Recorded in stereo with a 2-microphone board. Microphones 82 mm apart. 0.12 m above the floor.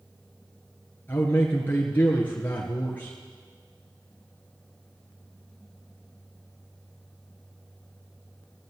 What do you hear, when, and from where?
1.1 s a man speaking: 20° left (ahead or behind), 1.9 m